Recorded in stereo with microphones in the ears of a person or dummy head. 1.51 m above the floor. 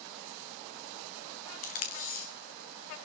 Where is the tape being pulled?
45° left (ahead or behind), 1.3 m.